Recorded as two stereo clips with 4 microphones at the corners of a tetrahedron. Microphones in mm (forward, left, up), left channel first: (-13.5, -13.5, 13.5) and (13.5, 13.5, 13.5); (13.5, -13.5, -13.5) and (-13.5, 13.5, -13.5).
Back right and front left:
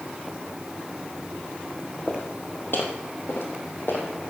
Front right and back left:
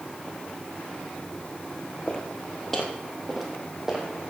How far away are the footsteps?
About 3 m.